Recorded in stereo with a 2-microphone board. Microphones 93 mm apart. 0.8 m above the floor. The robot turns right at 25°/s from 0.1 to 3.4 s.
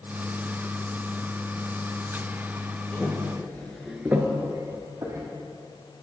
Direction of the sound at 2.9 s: 20° left (ahead or behind).